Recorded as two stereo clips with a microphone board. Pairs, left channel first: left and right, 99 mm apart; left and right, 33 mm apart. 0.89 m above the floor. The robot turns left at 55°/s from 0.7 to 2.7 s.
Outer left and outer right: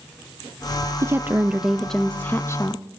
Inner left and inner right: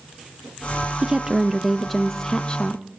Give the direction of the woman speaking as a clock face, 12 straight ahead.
5 o'clock.